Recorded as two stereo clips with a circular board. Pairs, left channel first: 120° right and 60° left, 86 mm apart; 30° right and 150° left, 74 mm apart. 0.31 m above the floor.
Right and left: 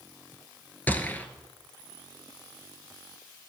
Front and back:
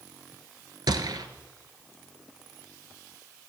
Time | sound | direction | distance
0.9 | a gunshot | 170° left | 0.8 m